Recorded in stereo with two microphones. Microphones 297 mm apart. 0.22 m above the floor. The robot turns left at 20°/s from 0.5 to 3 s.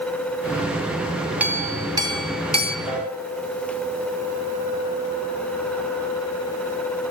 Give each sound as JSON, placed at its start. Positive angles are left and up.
{"t": 1.4, "sound": "a clink", "side_deg": -5, "distance_m": 1.2}
{"t": 2.9, "sound": "a piano", "side_deg": 20, "distance_m": 9.0}